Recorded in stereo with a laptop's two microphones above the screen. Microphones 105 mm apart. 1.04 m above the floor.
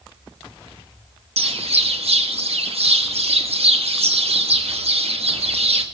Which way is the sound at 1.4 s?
70° right (ahead or behind).